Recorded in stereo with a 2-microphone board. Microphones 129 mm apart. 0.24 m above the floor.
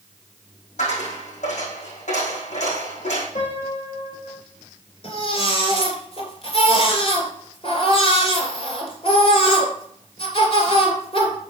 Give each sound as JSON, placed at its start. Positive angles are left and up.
{"t": 0.8, "sound": "a dropped coin", "side_deg": 70, "distance_m": 4.5}
{"t": 3.4, "sound": "a piano", "side_deg": 80, "distance_m": 3.5}
{"t": 5.0, "sound": "a baby crying", "side_deg": 50, "distance_m": 2.5}